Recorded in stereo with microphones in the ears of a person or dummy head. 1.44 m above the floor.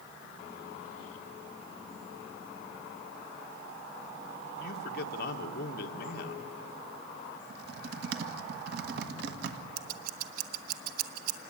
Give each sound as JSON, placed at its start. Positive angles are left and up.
{"t": 4.6, "sound": "a man speaking", "side_deg": 60, "distance_m": 1.4}
{"t": 7.5, "sound": "typing on a keyboard", "side_deg": -60, "distance_m": 1.7}
{"t": 9.8, "sound": "scissors", "side_deg": -55, "distance_m": 1.2}